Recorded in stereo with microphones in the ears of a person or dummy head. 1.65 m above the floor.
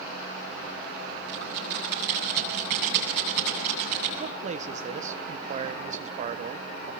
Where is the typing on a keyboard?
65° right (ahead or behind), 9 m.